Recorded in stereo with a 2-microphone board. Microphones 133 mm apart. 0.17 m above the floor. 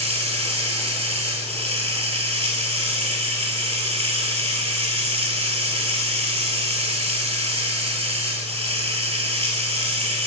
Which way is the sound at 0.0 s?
50° right (ahead or behind).